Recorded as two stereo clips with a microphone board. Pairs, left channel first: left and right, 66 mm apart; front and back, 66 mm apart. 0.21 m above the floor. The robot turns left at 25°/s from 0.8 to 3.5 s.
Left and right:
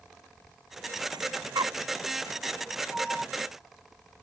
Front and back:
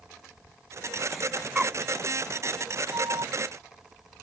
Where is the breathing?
95° right; by 1.8 s 110° right.